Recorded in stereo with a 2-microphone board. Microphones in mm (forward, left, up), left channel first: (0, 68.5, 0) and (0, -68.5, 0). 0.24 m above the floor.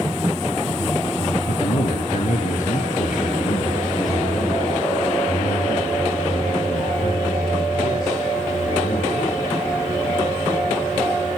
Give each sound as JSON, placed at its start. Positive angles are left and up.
{"t": 1.5, "sound": "a man speaking", "side_deg": 60, "distance_m": 4.0}